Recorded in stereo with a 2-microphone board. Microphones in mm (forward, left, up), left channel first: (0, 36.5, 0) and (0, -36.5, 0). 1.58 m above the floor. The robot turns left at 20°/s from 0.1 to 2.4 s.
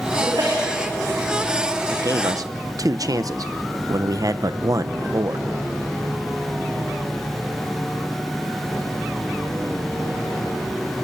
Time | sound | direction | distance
0.2 | a sneeze | 85° right | 4.5 m
1.9 | a man speaking | 55° right (ahead or behind) | 0.8 m